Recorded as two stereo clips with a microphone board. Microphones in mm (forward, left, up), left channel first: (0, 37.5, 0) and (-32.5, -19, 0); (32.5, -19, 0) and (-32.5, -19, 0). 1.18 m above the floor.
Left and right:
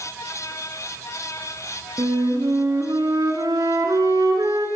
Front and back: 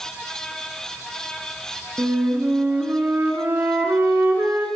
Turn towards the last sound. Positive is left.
turn(degrees=-120)